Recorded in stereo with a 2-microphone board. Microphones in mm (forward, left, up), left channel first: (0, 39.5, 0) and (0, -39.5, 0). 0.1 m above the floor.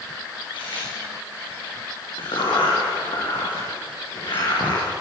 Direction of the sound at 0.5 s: 80° left.